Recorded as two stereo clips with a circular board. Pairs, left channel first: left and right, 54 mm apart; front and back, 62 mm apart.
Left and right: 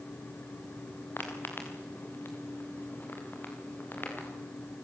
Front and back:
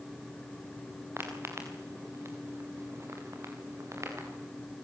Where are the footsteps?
135° left, 5.5 m; by 4.3 s 140° left, 7 m.